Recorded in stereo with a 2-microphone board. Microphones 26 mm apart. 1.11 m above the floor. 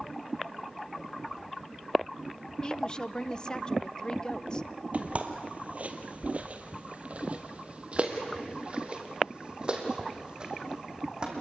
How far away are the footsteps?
About 1.7 m.